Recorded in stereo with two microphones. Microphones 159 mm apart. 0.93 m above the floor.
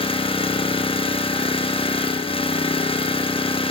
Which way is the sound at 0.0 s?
35° left (ahead or behind).